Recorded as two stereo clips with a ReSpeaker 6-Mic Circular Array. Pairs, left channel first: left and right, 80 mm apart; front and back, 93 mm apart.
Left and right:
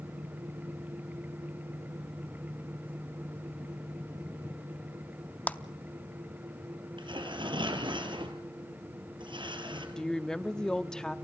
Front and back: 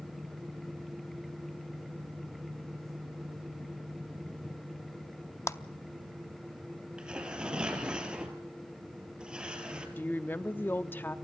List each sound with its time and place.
5.5 s a clap: 30° left, 0.6 m
7.0 s tearing paper: 100° right, 2.5 m
10.0 s a woman speaking: 20° left, 0.7 m